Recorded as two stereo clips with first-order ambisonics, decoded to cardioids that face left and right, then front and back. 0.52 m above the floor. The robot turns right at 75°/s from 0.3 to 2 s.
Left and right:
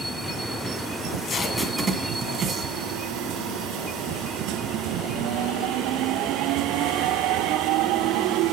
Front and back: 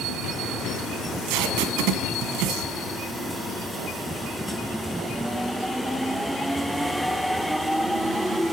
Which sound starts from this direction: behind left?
Tape being pulled, at 1.0 s.